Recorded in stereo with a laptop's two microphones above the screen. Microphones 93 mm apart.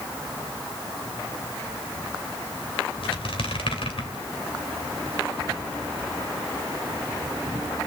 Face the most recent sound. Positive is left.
turn(degrees=70)  # may be behind; listen again after turning